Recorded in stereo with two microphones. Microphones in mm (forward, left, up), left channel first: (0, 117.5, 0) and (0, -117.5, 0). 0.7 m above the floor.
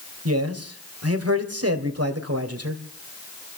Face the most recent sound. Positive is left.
turn(degrees=-75)  # may be behind; listen again after turning